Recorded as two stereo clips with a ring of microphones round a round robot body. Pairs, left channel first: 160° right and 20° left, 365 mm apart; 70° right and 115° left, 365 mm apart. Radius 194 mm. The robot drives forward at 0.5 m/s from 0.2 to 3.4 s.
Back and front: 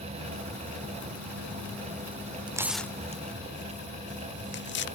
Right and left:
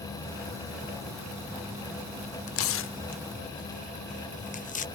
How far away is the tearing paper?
About 0.7 m.